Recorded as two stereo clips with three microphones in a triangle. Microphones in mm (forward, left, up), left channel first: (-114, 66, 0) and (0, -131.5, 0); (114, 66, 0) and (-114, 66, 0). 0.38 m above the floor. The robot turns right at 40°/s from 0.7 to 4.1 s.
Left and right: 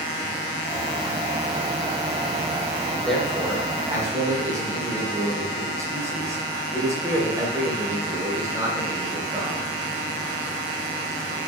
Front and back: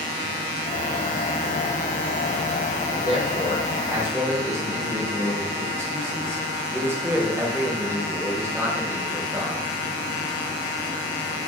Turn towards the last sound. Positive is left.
turn(degrees=-120)